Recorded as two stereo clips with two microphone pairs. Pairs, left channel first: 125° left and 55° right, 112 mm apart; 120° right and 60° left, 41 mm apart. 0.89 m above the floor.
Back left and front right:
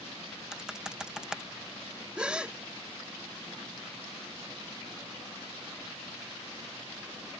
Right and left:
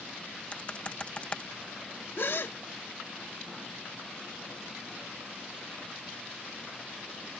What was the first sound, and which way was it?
Typing on a keyboard, 135° right.